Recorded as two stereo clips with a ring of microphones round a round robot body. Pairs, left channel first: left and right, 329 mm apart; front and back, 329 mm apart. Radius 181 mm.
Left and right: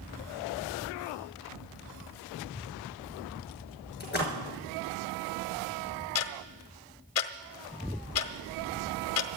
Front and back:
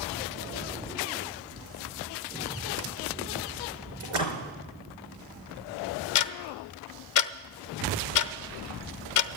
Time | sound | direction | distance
4.0 | a splash | 150° left | 6 m
6.2 | ticking | 40° left | 0.7 m